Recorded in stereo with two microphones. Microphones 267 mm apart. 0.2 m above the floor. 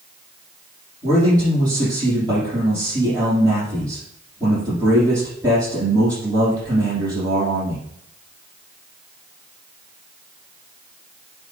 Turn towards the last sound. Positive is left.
turn(degrees=-15)  # may be behind; listen again after turning